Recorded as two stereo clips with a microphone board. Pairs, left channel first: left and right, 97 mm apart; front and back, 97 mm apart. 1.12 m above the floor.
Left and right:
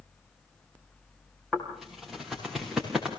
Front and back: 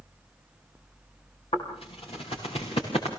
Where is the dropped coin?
No dropped coin in this recording.